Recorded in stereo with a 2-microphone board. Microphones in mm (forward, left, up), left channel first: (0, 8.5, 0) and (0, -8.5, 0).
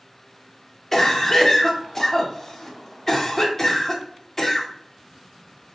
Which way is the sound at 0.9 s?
20° left (ahead or behind).